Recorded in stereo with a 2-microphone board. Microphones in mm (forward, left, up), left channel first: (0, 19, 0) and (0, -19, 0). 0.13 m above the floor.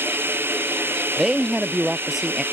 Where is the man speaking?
10° right (ahead or behind).